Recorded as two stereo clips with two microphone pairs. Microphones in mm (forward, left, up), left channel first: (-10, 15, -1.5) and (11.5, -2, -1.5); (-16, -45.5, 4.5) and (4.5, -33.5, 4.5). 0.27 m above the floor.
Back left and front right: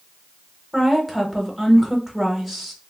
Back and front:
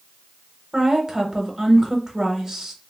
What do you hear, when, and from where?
0.7 s a woman speaking: 45° left, 0.9 m